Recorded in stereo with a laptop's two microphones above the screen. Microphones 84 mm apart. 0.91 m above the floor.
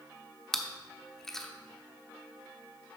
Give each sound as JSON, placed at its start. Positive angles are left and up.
{"t": 0.5, "sound": "chewing", "side_deg": 5, "distance_m": 0.9}